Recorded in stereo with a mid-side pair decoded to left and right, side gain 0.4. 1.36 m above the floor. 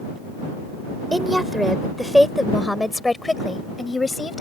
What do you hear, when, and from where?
1.1 s a woman speaking: 10° right; by 4.4 s 30° left